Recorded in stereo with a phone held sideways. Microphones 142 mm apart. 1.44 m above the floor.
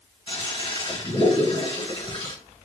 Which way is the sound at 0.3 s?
35° left (ahead or behind).